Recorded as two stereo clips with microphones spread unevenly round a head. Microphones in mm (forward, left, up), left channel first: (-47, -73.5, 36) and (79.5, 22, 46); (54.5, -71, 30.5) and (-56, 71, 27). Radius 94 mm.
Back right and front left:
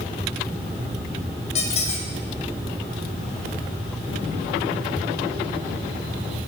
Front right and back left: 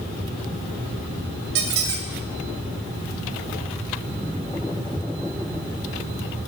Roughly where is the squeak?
Behind.